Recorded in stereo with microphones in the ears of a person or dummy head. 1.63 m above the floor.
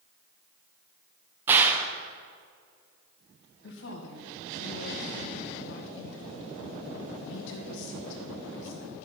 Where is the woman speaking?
70° left (ahead or behind), 2 m.